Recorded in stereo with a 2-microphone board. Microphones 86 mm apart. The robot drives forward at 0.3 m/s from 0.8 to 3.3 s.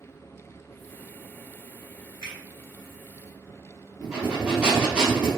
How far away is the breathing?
About 1.1 m.